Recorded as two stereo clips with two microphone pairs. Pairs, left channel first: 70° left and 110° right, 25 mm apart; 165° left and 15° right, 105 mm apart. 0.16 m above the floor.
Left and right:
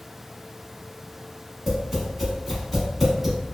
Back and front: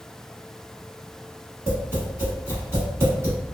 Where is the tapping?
40° right, 1.1 m.